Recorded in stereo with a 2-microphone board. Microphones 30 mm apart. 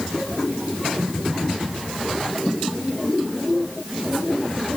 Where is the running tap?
No running tap in this recording.